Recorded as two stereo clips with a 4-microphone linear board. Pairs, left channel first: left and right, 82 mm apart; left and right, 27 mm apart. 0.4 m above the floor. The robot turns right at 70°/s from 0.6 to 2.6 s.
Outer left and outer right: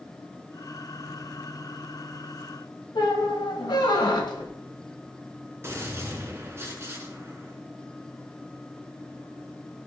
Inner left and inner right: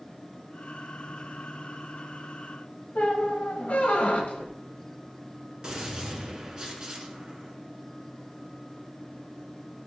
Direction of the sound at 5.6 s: 30° right (ahead or behind).